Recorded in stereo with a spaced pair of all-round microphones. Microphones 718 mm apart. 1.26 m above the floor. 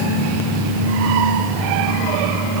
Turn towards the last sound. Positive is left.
No sound to turn to.